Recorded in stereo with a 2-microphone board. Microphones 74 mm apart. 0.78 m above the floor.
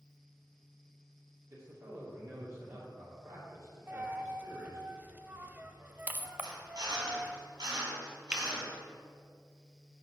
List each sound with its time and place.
1.5 s a man speaking: 45° right (ahead or behind), 2.5 m
3.9 s a dropped coin: 25° right (ahead or behind), 0.6 m
6.4 s a drill: 85° right, 3 m
8.3 s a finger snap: 15° right (ahead or behind), 0.8 m